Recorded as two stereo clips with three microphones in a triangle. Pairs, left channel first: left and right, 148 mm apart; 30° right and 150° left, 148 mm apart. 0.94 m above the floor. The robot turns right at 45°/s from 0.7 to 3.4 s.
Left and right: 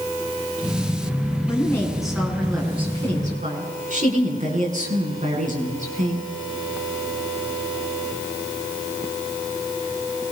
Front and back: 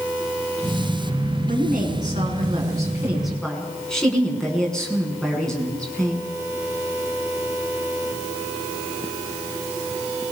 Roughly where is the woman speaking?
Behind left.